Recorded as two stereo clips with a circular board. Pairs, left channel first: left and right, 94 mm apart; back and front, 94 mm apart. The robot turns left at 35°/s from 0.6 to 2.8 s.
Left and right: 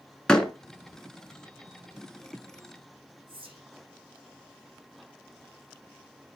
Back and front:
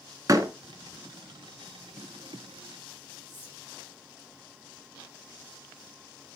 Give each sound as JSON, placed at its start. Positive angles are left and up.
{"t": 0.3, "sound": "a door slam", "azimuth_deg": 15, "distance_m": 0.9}
{"t": 3.3, "sound": "whispering", "azimuth_deg": -115, "distance_m": 5.0}